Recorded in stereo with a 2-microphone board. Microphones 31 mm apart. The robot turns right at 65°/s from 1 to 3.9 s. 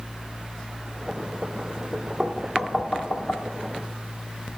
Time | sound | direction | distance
2.2 | knocking | 20° right (ahead or behind) | 1.0 m